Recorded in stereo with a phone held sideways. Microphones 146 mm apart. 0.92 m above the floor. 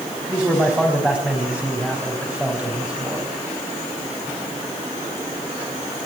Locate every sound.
0.3 s a man speaking: 10° right (ahead or behind), 5.5 m